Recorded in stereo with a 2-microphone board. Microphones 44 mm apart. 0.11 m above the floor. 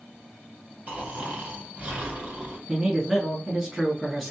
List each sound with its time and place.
0.9 s snoring: 30° right (ahead or behind), 1.5 m
2.7 s a man speaking: 10° right (ahead or behind), 1.3 m